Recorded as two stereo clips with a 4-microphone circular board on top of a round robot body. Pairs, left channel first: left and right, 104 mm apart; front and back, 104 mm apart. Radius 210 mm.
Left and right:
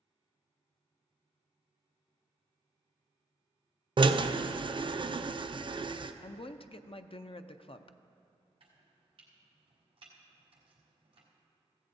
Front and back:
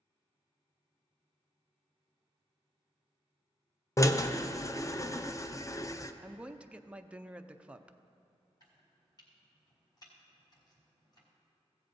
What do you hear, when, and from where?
4.0 s a drill: 55° right, 0.7 m
6.2 s a woman speaking: 100° left, 0.7 m
8.6 s chopping: 55° right, 1.1 m